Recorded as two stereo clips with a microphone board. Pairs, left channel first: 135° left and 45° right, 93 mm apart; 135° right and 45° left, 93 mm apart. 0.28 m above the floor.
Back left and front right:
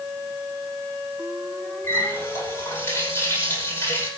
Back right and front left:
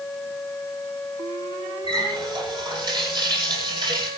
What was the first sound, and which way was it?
A running tap, 75° left.